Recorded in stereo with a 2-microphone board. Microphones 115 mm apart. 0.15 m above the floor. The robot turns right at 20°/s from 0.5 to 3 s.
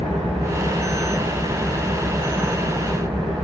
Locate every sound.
0.0 s an engine running: 100° right, 4 m; by 3.5 s 50° right, 4 m